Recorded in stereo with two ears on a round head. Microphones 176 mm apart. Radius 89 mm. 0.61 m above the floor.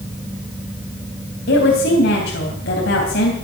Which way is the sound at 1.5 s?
55° left (ahead or behind).